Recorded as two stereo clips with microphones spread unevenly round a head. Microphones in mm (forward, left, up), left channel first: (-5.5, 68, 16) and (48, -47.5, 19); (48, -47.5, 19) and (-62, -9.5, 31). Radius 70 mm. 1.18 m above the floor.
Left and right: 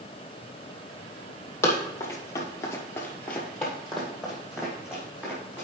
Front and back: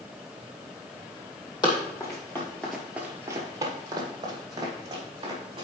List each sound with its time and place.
1.6 s running footsteps: 45° left, 2.5 m; by 5.7 s 145° right, 4.5 m